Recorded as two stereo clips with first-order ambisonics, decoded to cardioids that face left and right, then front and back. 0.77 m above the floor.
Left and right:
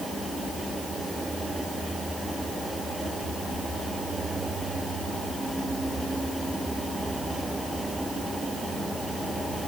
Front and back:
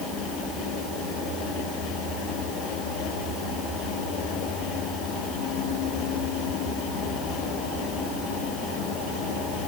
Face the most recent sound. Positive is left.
No sound to turn to.